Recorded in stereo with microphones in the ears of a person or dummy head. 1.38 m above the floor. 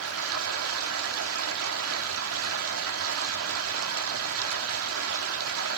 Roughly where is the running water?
Right.